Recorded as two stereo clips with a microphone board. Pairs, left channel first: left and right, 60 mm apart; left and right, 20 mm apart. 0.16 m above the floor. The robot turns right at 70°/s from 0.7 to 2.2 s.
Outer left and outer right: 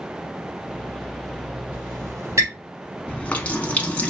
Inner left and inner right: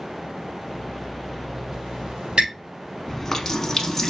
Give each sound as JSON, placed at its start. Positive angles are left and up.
{"t": 1.7, "sound": "a squeak", "side_deg": -25, "distance_m": 3.0}
{"t": 3.1, "sound": "a running tap", "side_deg": 25, "distance_m": 0.8}